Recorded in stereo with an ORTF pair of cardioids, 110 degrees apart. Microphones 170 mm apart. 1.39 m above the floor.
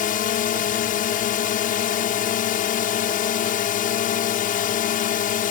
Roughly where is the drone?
Ahead left.